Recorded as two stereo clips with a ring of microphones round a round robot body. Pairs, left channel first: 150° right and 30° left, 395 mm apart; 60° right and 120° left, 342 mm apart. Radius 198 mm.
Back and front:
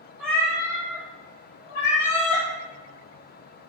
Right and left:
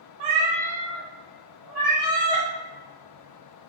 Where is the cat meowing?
120° left, 0.6 m; by 2.5 s 145° right, 1.1 m.